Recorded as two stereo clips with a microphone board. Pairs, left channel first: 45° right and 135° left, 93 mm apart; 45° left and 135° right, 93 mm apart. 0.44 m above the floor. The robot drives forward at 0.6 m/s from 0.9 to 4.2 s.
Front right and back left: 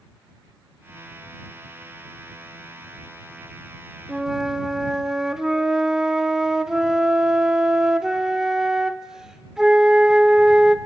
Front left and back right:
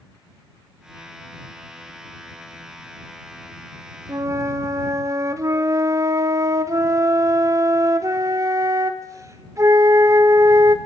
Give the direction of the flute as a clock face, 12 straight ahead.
5 o'clock.